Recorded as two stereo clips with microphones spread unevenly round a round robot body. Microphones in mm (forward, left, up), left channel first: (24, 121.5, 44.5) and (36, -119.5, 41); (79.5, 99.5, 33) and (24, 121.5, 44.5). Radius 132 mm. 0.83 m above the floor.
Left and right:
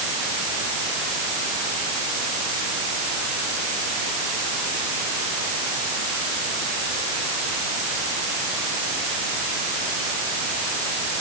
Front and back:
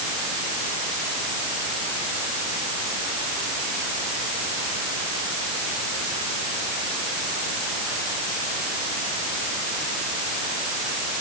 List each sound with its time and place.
Only background noise.